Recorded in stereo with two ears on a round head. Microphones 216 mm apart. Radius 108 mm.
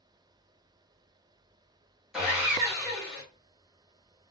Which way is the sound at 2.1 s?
5° right (ahead or behind).